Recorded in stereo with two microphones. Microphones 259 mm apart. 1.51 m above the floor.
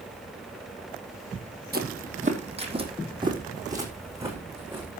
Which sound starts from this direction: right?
Footsteps, at 1.7 s.